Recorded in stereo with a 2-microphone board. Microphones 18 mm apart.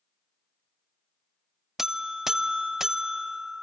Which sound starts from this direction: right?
A buzzer, at 1.8 s.